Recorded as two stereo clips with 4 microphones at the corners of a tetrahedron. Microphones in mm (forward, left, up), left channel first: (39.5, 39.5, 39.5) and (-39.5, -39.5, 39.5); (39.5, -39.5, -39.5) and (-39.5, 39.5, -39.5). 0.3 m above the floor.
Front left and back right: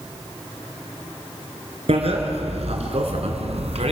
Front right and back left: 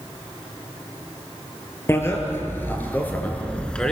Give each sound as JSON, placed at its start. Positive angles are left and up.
{"t": 1.9, "sound": "a bicycle bell", "azimuth_deg": -110, "distance_m": 3.5}